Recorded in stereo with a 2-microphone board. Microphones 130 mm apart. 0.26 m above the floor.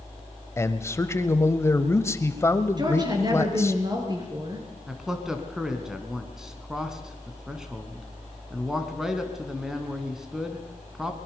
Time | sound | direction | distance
0.6 | a man speaking | 20° left (ahead or behind) | 1.1 m
2.8 | a woman speaking | 35° right (ahead or behind) | 4.5 m
4.9 | a man speaking | 5° right (ahead or behind) | 2 m